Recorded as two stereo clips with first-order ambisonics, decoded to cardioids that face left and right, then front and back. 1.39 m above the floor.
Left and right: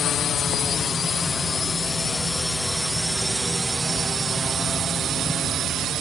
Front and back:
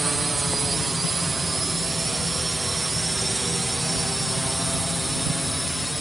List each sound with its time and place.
0.0 s a drone: 115° left; by 6.0 s 90° right